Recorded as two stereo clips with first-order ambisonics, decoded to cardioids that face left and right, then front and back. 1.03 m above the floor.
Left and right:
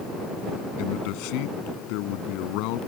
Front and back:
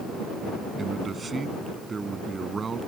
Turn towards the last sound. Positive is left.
turn(degrees=110)